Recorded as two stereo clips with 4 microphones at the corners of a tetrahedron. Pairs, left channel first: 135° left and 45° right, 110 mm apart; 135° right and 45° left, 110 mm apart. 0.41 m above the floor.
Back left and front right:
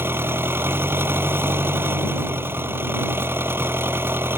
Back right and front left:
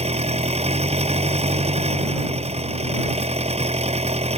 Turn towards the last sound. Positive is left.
turn(degrees=25)